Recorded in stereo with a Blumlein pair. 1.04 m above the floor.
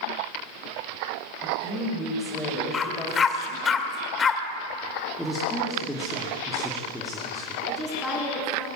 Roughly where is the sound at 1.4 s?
Ahead.